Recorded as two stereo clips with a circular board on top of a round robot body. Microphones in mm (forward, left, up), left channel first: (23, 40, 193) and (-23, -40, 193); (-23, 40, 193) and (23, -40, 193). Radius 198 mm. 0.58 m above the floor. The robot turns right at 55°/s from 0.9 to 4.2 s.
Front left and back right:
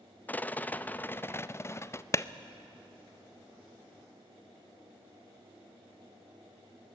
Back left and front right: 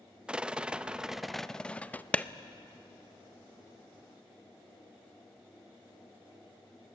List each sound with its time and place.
0.3 s a rattle: 10° left, 0.8 m; by 2.0 s 70° left, 0.8 m
2.1 s a clap: 55° left, 0.8 m; by 2.2 s 65° left, 0.8 m